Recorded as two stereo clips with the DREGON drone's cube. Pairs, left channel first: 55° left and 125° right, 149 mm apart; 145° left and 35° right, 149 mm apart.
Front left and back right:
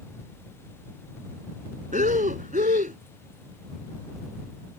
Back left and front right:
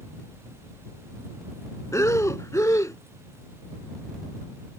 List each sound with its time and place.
1.9 s breathing: 145° right